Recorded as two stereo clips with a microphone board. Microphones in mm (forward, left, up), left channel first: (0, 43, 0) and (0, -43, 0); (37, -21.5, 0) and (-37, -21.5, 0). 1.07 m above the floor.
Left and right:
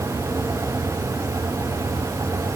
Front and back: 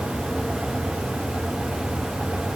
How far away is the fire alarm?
I don't hear a fire alarm.